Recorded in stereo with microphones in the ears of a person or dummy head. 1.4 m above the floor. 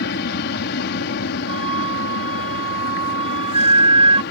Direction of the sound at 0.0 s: 50° left (ahead or behind).